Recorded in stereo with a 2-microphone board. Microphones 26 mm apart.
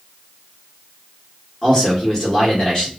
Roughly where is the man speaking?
Left.